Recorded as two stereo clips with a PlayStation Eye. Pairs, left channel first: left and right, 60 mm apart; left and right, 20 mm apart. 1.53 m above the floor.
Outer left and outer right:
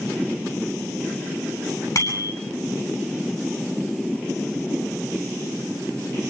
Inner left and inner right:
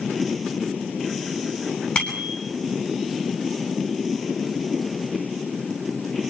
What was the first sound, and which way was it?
A bicycle bell, 65° left (ahead or behind).